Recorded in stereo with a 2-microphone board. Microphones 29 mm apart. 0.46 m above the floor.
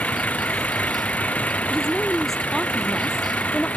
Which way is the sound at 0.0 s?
65° left (ahead or behind).